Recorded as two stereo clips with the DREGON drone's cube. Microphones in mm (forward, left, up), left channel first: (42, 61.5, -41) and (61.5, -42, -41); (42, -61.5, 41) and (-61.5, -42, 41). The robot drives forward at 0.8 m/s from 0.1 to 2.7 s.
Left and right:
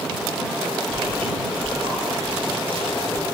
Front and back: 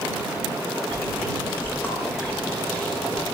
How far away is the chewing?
About 8 m.